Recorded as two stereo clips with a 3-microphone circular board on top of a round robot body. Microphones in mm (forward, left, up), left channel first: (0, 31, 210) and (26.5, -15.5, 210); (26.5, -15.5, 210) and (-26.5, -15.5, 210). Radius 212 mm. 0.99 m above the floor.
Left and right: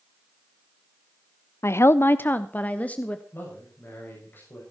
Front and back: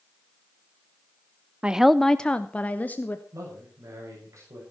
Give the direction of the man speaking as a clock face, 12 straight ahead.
6 o'clock.